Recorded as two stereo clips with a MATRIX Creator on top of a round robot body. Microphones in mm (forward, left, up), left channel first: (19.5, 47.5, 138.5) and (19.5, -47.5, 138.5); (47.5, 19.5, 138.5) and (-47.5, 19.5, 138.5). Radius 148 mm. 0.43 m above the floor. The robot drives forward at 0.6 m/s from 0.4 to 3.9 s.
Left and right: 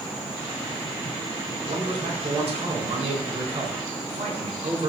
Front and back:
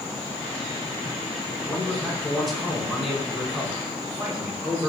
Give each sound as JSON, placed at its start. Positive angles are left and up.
{"t": 1.7, "sound": "a man speaking", "azimuth_deg": -85, "distance_m": 5.5}